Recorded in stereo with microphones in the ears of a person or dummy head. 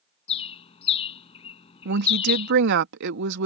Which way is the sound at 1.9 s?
55° right (ahead or behind).